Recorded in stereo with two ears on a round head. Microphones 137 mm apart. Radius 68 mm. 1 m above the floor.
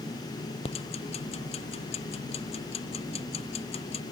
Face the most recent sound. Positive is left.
turn(degrees=40)  # may be behind; listen again after turning